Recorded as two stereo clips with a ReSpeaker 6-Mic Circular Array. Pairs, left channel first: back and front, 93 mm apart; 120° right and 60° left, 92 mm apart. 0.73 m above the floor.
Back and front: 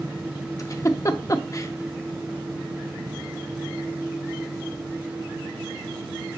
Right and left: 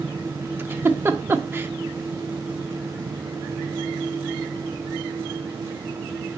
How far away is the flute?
No flute in this recording.